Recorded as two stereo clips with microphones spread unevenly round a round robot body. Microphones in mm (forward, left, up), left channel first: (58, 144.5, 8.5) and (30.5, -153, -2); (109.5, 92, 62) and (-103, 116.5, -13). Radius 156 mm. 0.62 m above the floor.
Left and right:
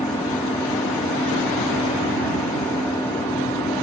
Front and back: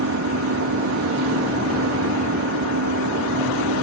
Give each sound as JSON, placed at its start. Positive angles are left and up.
{"t": 0.0, "sound": "an engine running", "azimuth_deg": 170}